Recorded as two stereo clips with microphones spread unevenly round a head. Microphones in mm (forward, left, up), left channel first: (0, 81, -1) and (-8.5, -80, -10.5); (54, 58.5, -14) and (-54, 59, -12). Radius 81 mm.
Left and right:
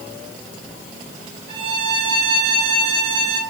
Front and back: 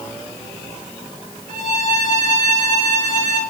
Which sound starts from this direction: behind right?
A violin, at 1.5 s.